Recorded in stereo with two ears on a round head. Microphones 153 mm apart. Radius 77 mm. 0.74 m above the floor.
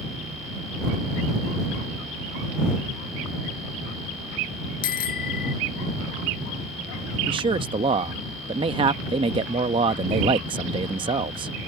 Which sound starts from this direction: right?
A man speaking, at 7.3 s.